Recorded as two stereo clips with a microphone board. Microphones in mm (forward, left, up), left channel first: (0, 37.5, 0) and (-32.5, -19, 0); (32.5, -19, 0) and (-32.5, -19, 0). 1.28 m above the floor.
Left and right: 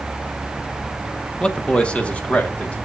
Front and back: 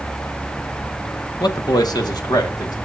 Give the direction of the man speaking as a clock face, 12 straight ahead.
1 o'clock.